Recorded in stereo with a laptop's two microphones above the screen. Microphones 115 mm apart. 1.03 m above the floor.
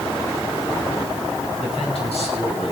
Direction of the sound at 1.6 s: 60° left (ahead or behind).